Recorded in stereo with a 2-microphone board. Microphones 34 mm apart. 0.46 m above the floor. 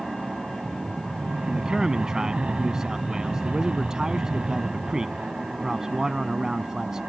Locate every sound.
0.0 s an aircraft: 30° right (ahead or behind)
1.5 s a man speaking: 15° right (ahead or behind)